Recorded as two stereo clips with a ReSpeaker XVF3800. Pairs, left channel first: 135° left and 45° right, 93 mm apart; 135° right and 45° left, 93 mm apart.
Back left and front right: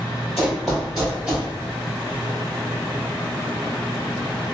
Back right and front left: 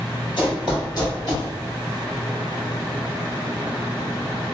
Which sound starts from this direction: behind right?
Running footsteps, at 0.4 s.